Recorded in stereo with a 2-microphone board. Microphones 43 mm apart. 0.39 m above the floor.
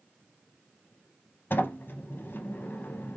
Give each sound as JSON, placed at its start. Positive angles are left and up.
{"t": 1.5, "sound": "a sliding door", "side_deg": 50, "distance_m": 0.5}